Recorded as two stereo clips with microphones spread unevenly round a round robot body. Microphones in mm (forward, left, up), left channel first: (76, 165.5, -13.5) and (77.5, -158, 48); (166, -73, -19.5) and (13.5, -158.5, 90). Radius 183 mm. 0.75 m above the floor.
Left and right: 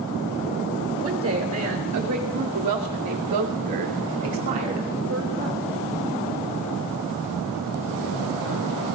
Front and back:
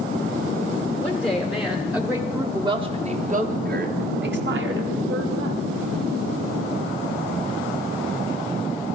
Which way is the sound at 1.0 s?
40° right.